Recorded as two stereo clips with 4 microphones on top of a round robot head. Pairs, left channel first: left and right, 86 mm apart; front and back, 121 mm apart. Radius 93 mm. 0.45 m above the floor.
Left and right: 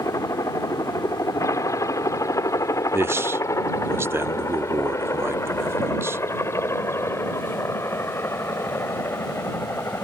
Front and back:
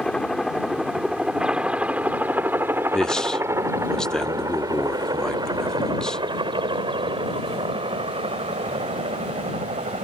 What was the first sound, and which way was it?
A helicopter, 80° left.